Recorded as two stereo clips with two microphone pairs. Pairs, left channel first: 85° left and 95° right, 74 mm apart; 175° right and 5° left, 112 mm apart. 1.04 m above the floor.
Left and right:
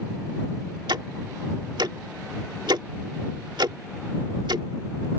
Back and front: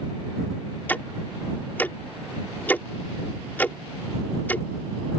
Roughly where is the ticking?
Right.